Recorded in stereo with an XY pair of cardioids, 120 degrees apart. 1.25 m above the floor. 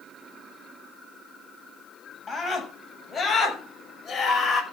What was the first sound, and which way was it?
A scream, 25° left.